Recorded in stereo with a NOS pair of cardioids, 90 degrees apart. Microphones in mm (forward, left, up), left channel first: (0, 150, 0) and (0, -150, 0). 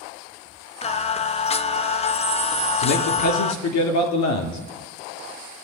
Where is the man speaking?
70° left, 3 m.